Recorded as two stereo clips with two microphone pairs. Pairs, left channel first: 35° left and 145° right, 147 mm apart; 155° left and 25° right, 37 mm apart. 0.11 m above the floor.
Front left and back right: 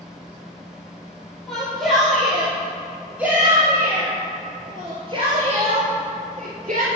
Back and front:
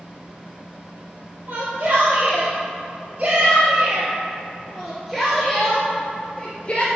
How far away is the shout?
About 4 m.